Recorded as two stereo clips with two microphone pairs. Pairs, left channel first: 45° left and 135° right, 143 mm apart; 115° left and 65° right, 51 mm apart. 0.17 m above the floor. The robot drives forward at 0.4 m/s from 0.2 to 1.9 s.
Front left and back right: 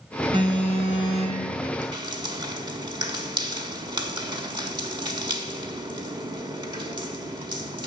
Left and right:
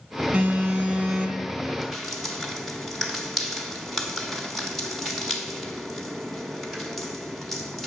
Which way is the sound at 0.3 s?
100° right.